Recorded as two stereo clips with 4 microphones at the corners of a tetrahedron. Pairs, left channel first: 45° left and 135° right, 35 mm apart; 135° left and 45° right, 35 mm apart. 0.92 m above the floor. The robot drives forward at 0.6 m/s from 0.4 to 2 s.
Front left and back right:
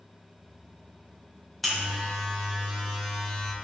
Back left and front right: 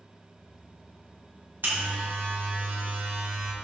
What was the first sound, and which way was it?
A buzzer, 40° right.